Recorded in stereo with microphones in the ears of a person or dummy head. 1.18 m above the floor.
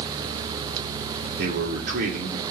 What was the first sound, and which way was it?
A man speaking, 55° right (ahead or behind).